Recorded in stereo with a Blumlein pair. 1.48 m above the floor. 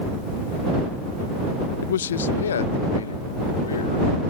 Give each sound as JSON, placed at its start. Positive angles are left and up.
{"t": 1.8, "sound": "a man speaking", "azimuth_deg": 60}